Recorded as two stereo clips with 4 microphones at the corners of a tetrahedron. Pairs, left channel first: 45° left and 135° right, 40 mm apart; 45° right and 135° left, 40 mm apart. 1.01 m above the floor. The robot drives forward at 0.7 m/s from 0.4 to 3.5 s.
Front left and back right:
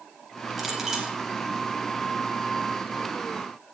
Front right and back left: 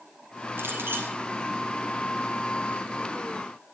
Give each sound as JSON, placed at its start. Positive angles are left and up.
{"t": 0.6, "sound": "a clink", "azimuth_deg": 140, "distance_m": 4.5}